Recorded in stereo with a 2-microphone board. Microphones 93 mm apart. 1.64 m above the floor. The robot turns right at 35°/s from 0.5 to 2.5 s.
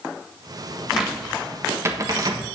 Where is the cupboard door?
Centre (ahead or behind), 1.3 m; by 2.5 s 50° right (ahead or behind), 1.3 m.